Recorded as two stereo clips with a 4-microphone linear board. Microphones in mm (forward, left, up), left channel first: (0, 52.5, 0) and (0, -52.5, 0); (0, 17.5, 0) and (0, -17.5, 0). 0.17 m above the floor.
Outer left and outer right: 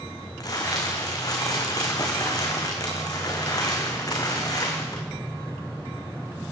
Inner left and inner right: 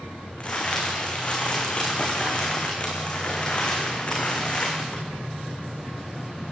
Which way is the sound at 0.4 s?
35° left (ahead or behind).